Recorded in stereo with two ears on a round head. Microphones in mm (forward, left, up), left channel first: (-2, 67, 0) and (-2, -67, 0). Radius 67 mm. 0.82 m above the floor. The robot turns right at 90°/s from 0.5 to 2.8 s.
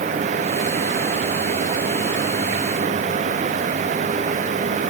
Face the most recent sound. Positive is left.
No sound to turn to.